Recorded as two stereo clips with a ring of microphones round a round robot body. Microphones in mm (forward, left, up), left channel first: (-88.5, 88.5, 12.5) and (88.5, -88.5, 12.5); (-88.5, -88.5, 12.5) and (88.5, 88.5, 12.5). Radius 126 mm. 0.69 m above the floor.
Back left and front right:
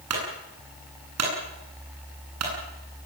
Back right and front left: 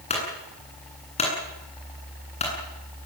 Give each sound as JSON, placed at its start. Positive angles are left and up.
{"t": 0.1, "sound": "a clunk", "azimuth_deg": -70, "distance_m": 9.0}